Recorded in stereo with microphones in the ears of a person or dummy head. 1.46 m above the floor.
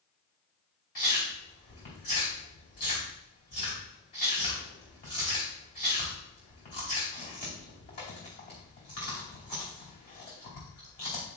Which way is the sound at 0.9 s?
45° left (ahead or behind).